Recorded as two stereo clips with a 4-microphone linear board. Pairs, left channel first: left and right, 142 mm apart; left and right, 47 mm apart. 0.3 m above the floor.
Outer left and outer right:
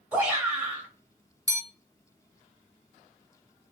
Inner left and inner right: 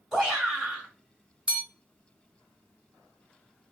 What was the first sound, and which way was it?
A shout, 10° right (ahead or behind).